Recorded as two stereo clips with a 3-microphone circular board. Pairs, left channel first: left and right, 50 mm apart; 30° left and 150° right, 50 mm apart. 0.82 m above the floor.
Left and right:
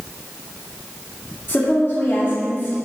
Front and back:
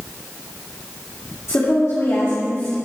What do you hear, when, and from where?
1.5 s a woman speaking: 55° left, 2.0 m